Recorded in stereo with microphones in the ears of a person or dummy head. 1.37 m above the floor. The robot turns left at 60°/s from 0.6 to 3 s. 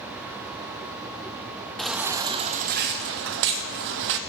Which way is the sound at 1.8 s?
5° left.